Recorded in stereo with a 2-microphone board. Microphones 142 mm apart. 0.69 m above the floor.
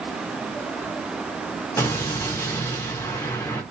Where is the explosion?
20° left (ahead or behind), 0.6 m.